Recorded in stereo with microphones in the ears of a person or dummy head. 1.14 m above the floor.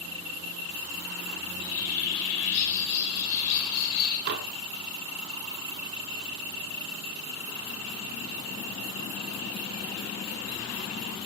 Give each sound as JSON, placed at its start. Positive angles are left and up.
{"t": 1.4, "sound": "a bird", "side_deg": 85, "distance_m": 3.0}
{"t": 4.3, "sound": "dishes clattering", "side_deg": -55, "distance_m": 1.6}